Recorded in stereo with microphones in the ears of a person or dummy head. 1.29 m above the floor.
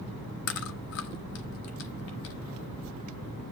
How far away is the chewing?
About 1.2 m.